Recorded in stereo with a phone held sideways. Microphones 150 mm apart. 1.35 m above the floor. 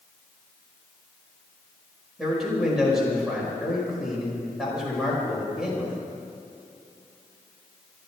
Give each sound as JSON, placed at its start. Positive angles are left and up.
{"t": 2.2, "sound": "a man speaking", "side_deg": -5, "distance_m": 5.5}